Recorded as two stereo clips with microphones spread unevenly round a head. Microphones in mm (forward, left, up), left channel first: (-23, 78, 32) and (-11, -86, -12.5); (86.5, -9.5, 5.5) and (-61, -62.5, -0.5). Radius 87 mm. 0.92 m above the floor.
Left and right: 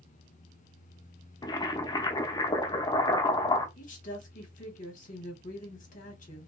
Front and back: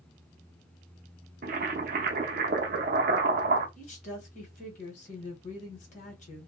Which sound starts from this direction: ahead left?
A woman speaking, at 3.8 s.